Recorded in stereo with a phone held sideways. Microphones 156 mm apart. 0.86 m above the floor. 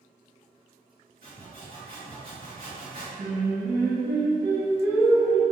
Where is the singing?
5° left (ahead or behind), 1.9 m.